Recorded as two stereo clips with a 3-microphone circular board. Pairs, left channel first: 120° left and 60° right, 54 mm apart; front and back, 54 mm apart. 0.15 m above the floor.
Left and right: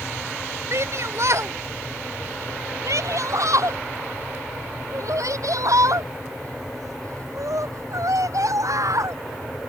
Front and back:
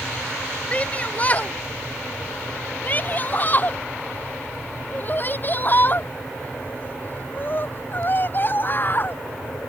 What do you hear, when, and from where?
0.7 s a shout: 60° right; by 9.2 s 50° right